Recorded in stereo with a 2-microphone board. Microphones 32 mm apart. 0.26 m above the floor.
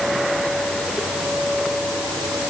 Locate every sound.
Only background noise.